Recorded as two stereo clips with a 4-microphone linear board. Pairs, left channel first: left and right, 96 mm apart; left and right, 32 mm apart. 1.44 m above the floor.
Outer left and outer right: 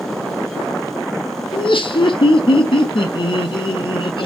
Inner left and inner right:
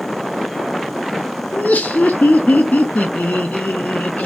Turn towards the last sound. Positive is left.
turn(degrees=60)  # may be behind; listen again after turning